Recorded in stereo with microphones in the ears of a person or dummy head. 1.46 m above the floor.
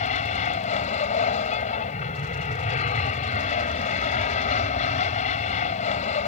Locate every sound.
0.0 s an aircraft: 40° left (ahead or behind)